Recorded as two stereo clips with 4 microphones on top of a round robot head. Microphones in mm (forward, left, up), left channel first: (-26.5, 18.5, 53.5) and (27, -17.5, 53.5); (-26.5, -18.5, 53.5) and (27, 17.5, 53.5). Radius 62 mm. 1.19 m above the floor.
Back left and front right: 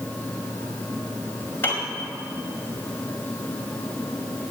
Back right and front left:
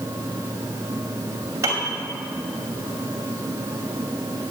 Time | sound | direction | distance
1.6 | a piano | 80° left | 2 m